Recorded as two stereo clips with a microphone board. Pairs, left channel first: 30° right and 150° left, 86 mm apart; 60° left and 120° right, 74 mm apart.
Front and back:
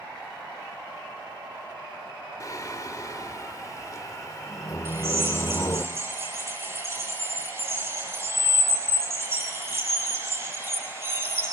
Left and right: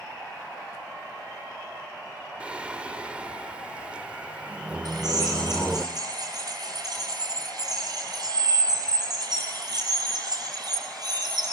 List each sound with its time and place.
2.4 s singing: 55° right, 1.0 m
4.8 s a drill: 155° right, 6.5 m